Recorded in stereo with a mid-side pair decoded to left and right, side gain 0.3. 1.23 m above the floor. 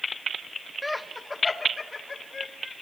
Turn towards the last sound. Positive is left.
turn(degrees=45)